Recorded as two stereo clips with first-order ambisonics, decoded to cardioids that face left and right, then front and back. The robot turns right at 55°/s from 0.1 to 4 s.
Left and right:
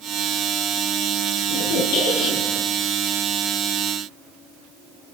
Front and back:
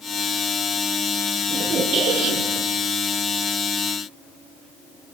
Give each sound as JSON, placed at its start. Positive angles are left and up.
{"t": 1.5, "sound": "a squeak", "azimuth_deg": 95, "distance_m": 5.5}